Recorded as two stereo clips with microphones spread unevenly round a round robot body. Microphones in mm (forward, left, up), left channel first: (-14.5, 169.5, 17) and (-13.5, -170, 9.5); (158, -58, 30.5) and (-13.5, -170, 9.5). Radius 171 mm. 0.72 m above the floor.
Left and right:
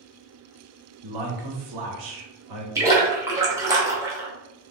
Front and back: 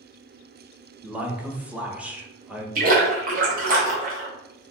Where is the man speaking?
65° right, 1.0 m.